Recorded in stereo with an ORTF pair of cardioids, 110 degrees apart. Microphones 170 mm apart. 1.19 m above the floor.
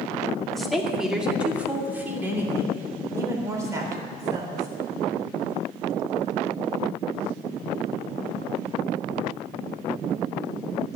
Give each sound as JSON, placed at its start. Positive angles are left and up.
{"t": 0.5, "sound": "a woman speaking", "azimuth_deg": 0, "distance_m": 2.0}